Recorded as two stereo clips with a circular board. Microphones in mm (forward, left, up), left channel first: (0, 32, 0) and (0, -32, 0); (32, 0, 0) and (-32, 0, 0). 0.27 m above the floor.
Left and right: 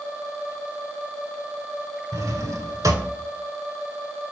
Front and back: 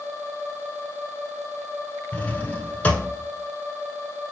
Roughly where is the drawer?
Right.